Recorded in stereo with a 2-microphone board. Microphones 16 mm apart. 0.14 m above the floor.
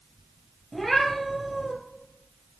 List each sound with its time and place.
0.7 s a cat meowing: 5° left (ahead or behind), 2.0 m